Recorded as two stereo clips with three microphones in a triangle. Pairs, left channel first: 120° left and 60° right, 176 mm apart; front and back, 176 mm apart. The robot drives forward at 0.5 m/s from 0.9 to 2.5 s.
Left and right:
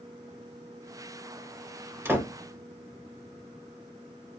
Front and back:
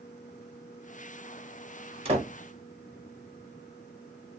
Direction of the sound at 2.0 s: 135° right.